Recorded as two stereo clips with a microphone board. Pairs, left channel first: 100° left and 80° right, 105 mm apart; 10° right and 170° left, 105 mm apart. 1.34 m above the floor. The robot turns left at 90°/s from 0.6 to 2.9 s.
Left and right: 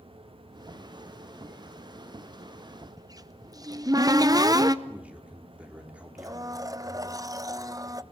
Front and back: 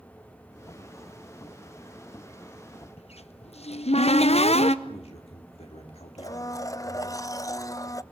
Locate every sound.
3.0 s a cupboard door: 25° right, 0.7 m
4.8 s a man speaking: straight ahead, 3.5 m
6.2 s a blender: 55° right, 0.6 m